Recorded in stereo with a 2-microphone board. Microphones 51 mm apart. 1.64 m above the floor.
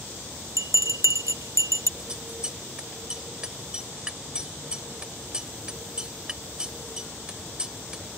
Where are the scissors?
15° right (ahead or behind).